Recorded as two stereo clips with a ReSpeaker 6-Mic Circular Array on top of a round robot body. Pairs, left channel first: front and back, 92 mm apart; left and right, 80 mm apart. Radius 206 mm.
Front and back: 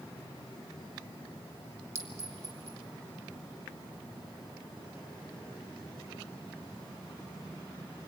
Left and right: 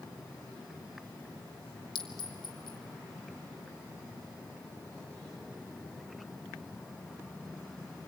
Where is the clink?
115° left, 1.4 m.